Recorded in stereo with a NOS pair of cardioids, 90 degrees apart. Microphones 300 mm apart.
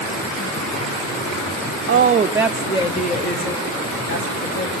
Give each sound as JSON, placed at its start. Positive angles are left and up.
{"t": 1.9, "sound": "a woman speaking", "azimuth_deg": -40, "distance_m": 0.7}